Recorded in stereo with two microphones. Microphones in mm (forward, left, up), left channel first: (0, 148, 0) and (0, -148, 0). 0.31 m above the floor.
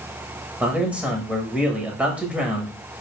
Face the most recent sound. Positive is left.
turn(degrees=-5)  # may be behind; listen again after turning